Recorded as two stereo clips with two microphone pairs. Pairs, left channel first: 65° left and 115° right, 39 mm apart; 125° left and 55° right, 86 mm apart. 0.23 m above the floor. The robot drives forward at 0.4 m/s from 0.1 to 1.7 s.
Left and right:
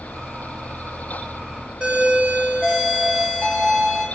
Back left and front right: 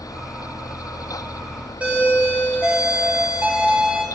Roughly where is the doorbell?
Right.